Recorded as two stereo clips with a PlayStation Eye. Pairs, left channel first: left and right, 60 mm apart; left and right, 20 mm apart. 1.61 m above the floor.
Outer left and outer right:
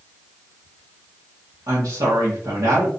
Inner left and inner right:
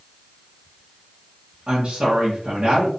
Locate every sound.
1.7 s a woman speaking: 80° right, 1.5 m